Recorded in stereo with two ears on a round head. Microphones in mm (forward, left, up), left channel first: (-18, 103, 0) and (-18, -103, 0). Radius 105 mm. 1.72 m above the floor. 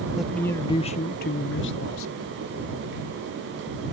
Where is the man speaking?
5° right (ahead or behind); by 2.4 s 75° left (ahead or behind).